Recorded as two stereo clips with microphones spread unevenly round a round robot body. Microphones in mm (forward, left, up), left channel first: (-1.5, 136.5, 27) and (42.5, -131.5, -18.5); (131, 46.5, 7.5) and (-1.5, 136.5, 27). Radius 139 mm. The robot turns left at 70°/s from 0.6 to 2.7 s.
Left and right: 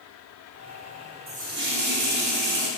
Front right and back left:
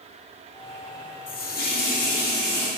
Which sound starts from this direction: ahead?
A running tap, at 1.3 s.